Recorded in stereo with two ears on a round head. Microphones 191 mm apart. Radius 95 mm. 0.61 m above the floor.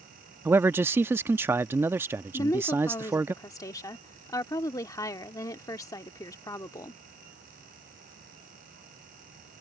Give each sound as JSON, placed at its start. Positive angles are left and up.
{"t": 0.5, "sound": "a man speaking", "side_deg": -10}
{"t": 2.3, "sound": "a woman speaking", "side_deg": 15}